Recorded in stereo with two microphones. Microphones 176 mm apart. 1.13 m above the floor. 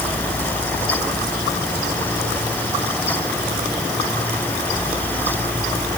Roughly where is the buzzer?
I don't hear a buzzer.